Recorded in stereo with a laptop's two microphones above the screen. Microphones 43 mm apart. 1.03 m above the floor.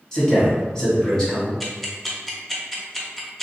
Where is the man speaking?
15° left (ahead or behind), 1.8 m.